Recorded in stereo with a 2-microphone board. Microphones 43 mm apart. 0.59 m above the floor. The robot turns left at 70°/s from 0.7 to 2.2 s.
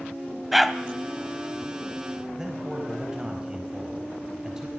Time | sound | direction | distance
0.5 | a dog barking | 5° right (ahead or behind) | 1.0 m
2.4 | a man speaking | 15° right (ahead or behind) | 4 m